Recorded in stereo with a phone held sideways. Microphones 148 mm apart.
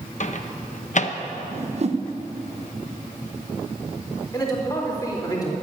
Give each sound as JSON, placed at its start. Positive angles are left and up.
{"t": 0.2, "sound": "a microwave", "side_deg": 55, "distance_m": 0.8}
{"t": 1.5, "sound": "a whoosh", "side_deg": -45, "distance_m": 0.9}
{"t": 4.3, "sound": "a man speaking", "side_deg": 25, "distance_m": 4.0}